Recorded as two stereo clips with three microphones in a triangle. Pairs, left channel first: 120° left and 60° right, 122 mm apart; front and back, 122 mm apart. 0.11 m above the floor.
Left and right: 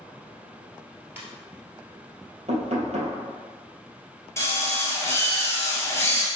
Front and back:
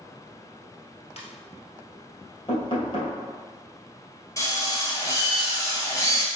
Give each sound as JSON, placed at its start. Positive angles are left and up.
{"t": 1.2, "sound": "a ringtone", "azimuth_deg": 10, "distance_m": 1.3}
{"t": 2.5, "sound": "knocking", "azimuth_deg": -45, "distance_m": 2.0}
{"t": 4.4, "sound": "a drill", "azimuth_deg": 55, "distance_m": 1.6}